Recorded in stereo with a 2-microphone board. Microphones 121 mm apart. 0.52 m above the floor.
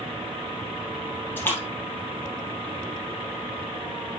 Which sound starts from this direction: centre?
A splash, at 1.4 s.